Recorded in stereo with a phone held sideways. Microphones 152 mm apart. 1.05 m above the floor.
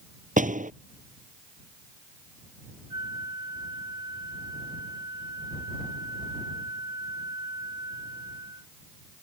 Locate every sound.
0.4 s a door slam: 55° right (ahead or behind)
2.9 s a flute: 25° right (ahead or behind)